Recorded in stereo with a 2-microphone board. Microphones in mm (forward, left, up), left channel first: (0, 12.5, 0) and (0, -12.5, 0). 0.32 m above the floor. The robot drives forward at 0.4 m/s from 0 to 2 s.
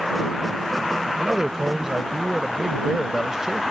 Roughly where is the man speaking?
Right.